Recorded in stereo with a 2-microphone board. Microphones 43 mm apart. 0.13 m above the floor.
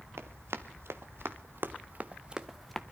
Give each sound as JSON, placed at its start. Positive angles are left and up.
{"t": 0.2, "sound": "running footsteps", "side_deg": -85, "distance_m": 1.9}